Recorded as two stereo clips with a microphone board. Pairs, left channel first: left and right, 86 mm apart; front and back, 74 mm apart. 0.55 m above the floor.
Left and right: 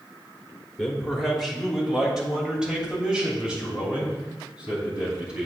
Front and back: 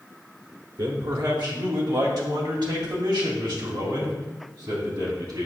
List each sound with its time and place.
0.8 s a man speaking: 175° left, 1.4 m; by 5.5 s 165° right, 4 m